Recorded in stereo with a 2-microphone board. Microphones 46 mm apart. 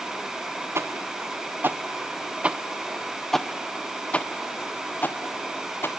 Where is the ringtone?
I don't hear a ringtone.